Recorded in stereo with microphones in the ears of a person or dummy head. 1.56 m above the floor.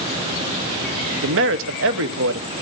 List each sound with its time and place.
1.2 s a man speaking: 65° right (ahead or behind), 1.1 m